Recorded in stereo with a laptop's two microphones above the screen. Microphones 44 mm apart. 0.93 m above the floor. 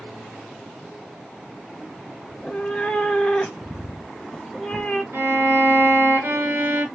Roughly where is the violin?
Right.